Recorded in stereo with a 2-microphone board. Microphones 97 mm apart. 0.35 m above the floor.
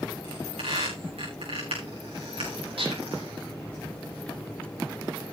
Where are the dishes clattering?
80° right, 9 m.